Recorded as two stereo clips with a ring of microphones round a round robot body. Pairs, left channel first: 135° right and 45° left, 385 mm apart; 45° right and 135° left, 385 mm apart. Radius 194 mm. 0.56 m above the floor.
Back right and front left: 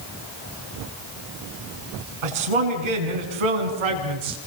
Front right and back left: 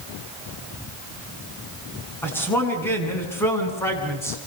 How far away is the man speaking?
About 7.5 m.